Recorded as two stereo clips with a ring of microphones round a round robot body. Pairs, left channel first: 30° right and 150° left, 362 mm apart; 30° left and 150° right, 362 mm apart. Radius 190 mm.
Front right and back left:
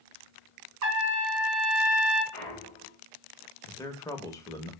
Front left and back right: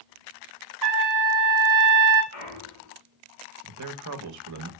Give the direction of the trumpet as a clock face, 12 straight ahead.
6 o'clock.